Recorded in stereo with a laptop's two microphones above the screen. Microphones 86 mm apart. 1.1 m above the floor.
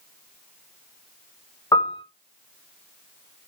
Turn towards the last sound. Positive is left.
turn(degrees=50)  # may be behind; listen again after turning